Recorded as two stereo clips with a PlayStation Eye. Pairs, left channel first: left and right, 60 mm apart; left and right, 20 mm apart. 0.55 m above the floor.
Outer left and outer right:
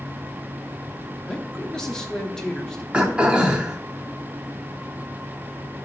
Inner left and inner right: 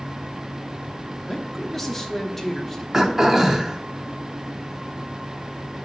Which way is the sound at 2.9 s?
20° right (ahead or behind).